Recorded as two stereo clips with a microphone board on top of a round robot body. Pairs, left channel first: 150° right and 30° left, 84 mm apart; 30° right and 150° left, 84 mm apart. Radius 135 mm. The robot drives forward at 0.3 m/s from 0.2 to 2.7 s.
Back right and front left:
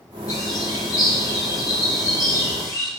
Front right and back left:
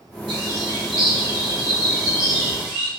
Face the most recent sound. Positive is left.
turn(degrees=165)